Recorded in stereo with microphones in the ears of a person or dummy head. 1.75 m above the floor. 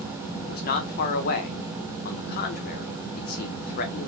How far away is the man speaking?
About 1.3 m.